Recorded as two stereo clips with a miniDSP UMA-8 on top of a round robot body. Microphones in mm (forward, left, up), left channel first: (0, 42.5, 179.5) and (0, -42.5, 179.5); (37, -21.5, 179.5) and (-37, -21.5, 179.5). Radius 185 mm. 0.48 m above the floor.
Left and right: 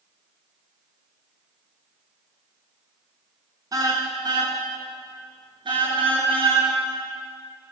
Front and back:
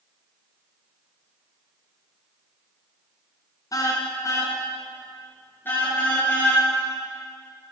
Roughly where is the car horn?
Ahead right.